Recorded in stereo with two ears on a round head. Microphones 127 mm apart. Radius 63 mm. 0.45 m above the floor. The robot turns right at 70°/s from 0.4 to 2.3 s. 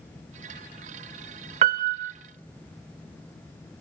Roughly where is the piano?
Behind right.